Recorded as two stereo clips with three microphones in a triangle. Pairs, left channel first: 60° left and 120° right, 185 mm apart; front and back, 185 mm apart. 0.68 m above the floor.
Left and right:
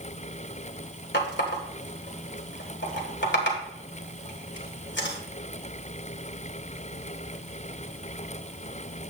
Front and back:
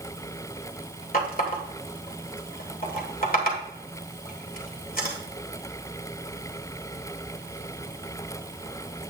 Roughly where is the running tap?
Ahead left.